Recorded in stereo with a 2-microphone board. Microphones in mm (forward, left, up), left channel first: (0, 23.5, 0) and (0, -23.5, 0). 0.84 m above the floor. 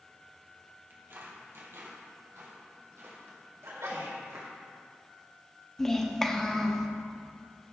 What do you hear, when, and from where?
0.9 s footsteps: 45° right (ahead or behind), 1.5 m; by 4.5 s 65° right (ahead or behind), 3 m
3.6 s a sneeze: 80° right, 2.5 m
5.8 s a child speaking: 10° left (ahead or behind), 0.7 m